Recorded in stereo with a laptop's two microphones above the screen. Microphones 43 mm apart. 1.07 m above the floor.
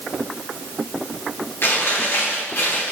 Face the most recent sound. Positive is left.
turn(degrees=65)  # may be behind; listen again after turning